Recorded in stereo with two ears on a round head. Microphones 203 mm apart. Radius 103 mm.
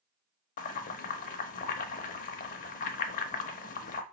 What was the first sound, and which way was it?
Boiling, 35° left (ahead or behind).